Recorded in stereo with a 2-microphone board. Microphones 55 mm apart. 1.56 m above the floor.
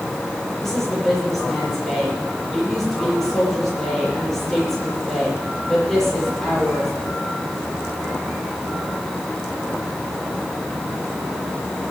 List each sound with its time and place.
0.6 s a woman speaking: 5° left (ahead or behind), 6.5 m